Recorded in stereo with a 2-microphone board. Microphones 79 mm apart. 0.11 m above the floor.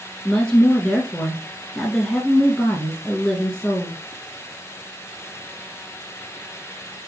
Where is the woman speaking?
10° left (ahead or behind), 1.2 m.